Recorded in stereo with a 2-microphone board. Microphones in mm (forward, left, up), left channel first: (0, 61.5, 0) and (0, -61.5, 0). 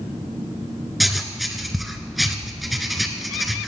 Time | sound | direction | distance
1.0 | writing | centre (ahead or behind) | 1.7 m